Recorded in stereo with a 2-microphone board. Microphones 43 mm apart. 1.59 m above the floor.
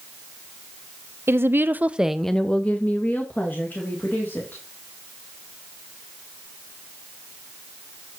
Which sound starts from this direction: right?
A woman speaking, at 1.3 s.